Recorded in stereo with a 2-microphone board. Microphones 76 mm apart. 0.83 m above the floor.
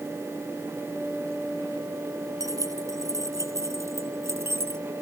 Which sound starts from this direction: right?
Keys jangling, at 2.4 s.